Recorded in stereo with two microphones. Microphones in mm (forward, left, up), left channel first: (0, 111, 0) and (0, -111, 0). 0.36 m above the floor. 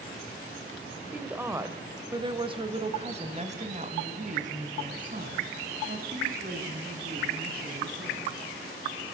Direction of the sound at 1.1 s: 5° right (ahead or behind).